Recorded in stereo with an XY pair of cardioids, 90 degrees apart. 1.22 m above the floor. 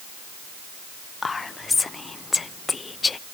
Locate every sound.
1.2 s whispering: 35° left, 0.5 m